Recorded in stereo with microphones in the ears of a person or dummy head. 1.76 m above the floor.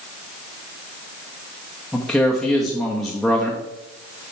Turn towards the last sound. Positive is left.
turn(degrees=0)  # may be behind; listen again after turning